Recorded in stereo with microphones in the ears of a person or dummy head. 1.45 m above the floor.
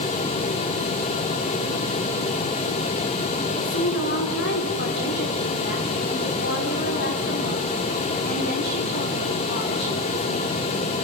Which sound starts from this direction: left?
A woman speaking, at 3.5 s.